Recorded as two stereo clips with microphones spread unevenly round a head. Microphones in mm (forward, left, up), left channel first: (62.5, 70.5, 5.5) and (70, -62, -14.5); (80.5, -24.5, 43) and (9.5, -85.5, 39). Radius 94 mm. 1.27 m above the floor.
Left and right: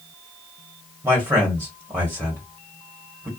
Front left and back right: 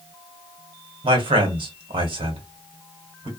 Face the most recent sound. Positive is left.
turn(degrees=-160)